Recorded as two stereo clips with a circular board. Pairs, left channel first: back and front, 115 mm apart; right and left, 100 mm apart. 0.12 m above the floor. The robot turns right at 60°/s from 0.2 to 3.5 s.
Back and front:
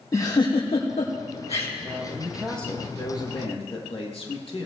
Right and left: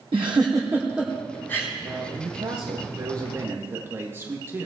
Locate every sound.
0.1 s a giggle: 120° left, 3.5 m; by 1.7 s 150° right, 3.5 m
1.8 s a man speaking: 55° left, 3.5 m; by 4.7 s 155° left, 3.5 m